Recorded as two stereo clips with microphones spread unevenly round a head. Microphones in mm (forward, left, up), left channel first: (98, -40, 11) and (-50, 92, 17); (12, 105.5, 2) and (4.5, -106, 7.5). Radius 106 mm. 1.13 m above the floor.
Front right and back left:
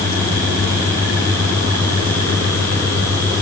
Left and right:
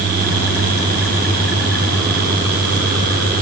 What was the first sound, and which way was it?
Only background noise.